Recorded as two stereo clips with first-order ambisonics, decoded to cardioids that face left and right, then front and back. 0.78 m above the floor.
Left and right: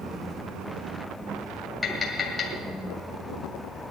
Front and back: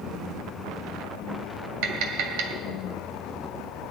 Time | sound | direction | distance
1.8 | tapping | 170° left | 2 m